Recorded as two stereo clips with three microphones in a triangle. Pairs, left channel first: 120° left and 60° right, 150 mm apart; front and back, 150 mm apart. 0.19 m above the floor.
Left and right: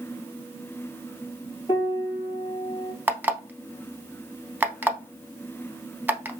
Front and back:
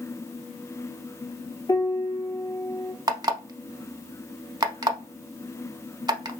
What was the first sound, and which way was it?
A piano, 65° left.